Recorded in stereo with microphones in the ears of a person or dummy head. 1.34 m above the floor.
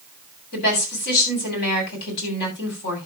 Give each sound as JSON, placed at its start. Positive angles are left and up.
{"t": 0.5, "sound": "a woman speaking", "side_deg": 55, "distance_m": 8.0}